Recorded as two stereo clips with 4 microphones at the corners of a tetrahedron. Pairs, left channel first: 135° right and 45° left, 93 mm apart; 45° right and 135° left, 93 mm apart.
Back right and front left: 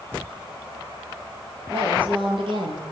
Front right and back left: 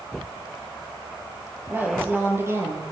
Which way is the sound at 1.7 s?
65° left.